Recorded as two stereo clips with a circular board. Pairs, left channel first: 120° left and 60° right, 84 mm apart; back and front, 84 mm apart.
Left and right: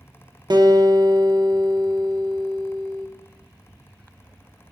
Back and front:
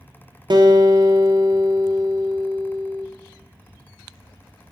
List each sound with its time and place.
0.5 s a guitar: 30° right, 0.8 m